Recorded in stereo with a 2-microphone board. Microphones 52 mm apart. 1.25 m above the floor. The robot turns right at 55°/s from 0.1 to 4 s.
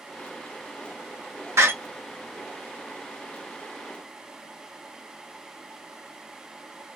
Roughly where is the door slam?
Right.